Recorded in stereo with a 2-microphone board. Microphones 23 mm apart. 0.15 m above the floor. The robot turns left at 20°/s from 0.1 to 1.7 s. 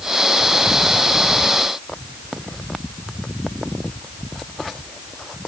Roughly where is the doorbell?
I don't hear a doorbell.